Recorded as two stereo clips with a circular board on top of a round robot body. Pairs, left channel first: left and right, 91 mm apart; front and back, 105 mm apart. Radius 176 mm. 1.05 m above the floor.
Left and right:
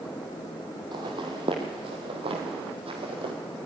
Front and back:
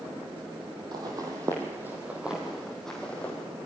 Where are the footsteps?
130° right, 1.9 m; by 3.3 s 75° right, 2 m.